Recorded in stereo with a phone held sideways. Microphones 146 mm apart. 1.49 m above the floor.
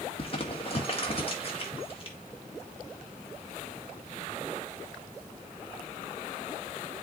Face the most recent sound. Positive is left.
turn(degrees=40)  # may be behind; listen again after turning